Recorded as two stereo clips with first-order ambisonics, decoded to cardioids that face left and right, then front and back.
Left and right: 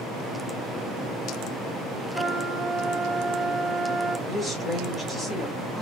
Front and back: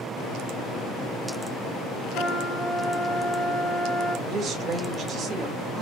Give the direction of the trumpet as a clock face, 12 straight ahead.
12 o'clock.